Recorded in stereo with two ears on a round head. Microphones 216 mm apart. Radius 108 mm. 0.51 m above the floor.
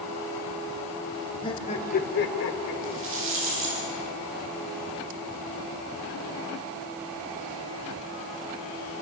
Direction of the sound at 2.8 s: 60° right (ahead or behind).